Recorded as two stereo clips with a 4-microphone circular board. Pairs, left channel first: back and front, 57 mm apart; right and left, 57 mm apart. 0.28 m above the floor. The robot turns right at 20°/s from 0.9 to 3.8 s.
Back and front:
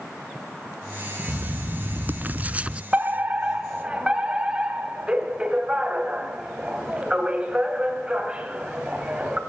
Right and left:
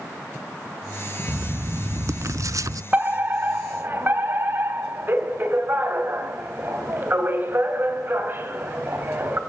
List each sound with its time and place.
1.3 s writing: 40° left, 0.5 m; by 2.8 s 70° left, 0.5 m
2.9 s a fire alarm: 45° left, 3 m; by 9.4 s 65° left, 3 m